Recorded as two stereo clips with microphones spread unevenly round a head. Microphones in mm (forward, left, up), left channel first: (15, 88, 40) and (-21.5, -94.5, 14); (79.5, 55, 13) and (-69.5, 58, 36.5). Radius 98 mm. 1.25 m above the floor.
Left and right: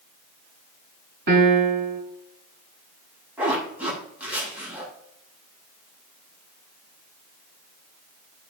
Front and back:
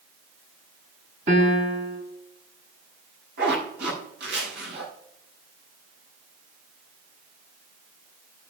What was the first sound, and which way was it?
A piano, 130° right.